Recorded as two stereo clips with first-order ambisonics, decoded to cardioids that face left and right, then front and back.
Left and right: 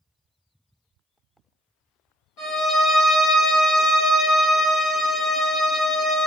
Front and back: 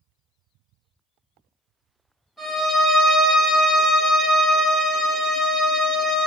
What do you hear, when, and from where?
2.4 s a violin: 85° left, 1.4 m